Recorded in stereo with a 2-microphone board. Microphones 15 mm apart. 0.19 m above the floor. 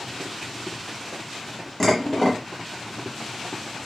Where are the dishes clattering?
20° left (ahead or behind), 0.8 m.